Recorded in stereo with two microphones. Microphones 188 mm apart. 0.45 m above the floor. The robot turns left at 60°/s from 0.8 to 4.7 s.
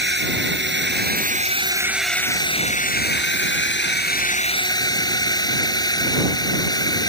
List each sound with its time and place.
0.0 s a drone: 105° right; by 7.1 s 20° left